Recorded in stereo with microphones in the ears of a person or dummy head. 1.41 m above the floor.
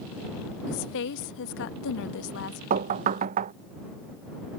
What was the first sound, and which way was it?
A woman speaking, 65° left (ahead or behind).